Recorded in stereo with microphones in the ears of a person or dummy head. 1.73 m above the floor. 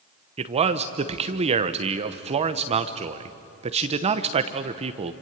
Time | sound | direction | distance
0.4 | a man speaking | 30° right (ahead or behind) | 1.0 m